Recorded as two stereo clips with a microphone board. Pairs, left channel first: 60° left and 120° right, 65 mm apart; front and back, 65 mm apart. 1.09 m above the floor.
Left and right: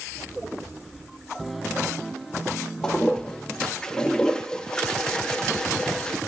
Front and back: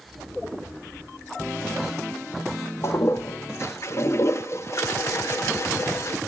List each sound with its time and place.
2.8 s a toilet flushing: 10° right, 0.5 m